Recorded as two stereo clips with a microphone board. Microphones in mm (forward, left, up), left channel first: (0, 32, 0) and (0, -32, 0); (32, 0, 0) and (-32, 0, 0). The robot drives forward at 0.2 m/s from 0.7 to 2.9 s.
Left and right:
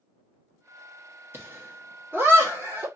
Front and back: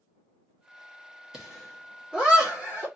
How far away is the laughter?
About 1.4 m.